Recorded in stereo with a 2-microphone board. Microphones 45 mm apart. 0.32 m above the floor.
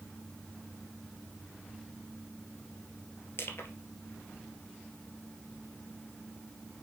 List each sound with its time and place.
3.4 s crushing: 65° left (ahead or behind), 2 m